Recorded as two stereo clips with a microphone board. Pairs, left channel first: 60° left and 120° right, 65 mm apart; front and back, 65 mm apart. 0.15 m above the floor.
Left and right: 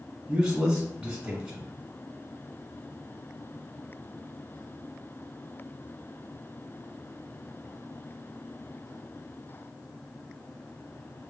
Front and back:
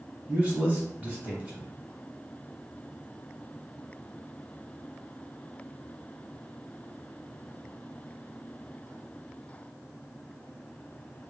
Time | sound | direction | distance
0.3 | a man speaking | 175° right | 1.3 m